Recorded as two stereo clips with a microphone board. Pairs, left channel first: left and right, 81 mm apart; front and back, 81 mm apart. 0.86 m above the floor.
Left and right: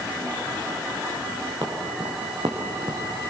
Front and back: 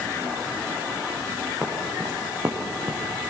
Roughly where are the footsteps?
Right.